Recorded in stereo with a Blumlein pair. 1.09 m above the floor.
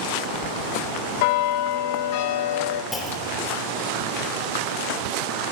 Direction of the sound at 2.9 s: 10° left.